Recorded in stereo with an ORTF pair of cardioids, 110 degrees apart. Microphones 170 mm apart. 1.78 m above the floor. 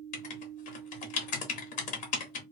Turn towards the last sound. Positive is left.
turn(degrees=55)